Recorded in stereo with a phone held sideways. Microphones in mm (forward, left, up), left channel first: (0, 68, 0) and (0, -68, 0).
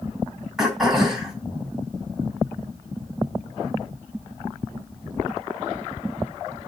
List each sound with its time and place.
0.6 s throat clearing: centre (ahead or behind), 3 m